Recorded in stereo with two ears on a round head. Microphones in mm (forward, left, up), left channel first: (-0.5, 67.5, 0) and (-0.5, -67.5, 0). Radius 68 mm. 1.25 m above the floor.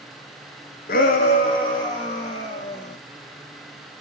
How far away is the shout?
About 0.6 m.